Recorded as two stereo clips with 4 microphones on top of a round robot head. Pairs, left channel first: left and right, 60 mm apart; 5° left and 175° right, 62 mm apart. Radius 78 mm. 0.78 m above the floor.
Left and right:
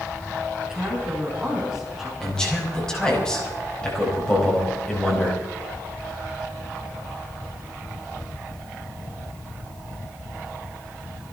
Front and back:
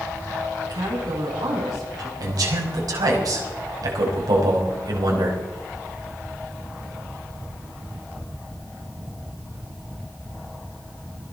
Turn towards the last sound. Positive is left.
turn(degrees=170)